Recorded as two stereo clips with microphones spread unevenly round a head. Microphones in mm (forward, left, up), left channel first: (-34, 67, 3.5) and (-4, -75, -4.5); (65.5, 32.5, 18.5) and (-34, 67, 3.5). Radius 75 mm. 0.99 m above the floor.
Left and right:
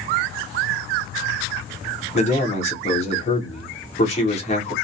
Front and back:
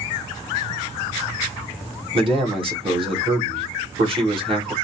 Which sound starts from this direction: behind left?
A man speaking, at 2.1 s.